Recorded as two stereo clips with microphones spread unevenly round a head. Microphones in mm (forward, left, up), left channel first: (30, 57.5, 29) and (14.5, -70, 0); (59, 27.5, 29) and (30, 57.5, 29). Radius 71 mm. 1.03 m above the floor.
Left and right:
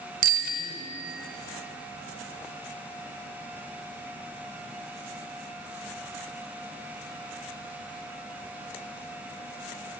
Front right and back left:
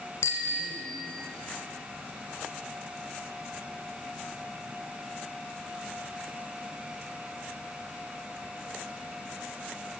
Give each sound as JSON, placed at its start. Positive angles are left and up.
{"t": 0.2, "sound": "a bicycle bell", "azimuth_deg": -90, "distance_m": 2.5}